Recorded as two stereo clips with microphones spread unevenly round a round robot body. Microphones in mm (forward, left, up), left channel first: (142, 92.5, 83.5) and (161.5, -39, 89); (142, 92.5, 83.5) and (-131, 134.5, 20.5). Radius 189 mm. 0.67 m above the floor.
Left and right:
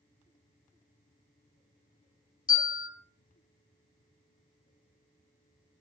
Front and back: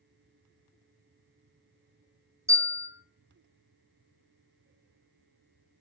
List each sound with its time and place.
2.5 s a bell: 95° left, 1.5 m